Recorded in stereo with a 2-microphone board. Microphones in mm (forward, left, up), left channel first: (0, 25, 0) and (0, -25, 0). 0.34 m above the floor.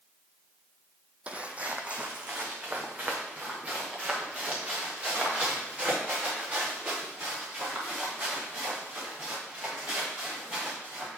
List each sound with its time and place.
1.3 s footsteps: 25° right (ahead or behind), 0.7 m